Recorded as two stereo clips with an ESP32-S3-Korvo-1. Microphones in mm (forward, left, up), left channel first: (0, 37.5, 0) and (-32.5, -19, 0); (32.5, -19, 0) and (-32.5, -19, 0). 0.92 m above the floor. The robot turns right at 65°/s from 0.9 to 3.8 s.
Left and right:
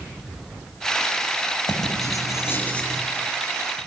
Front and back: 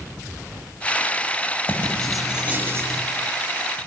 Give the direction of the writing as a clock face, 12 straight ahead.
10 o'clock.